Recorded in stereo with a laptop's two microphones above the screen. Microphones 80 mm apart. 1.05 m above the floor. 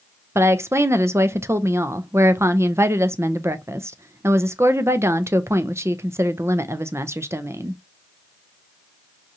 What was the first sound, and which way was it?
A woman speaking, 35° right (ahead or behind).